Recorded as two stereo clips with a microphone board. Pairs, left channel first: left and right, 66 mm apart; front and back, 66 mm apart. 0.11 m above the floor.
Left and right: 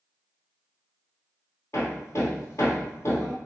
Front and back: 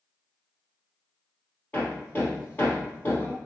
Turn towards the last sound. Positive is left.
turn(degrees=55)